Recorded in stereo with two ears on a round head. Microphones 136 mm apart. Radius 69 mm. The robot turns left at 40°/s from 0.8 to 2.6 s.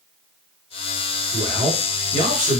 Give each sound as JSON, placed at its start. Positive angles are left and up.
{"t": 1.3, "sound": "a man speaking", "azimuth_deg": -70, "distance_m": 1.9}